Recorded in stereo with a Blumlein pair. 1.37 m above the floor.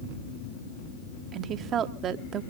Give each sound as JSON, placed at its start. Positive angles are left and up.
{"t": 1.3, "sound": "a woman speaking", "azimuth_deg": -30, "distance_m": 1.0}